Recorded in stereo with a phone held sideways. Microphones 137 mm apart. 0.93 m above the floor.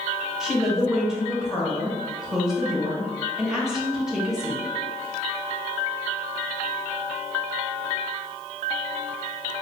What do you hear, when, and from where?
0.4 s a woman speaking: 5° right (ahead or behind), 0.8 m